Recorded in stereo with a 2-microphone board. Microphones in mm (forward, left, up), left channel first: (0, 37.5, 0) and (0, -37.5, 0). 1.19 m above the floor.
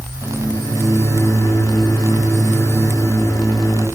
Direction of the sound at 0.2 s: 50° left (ahead or behind).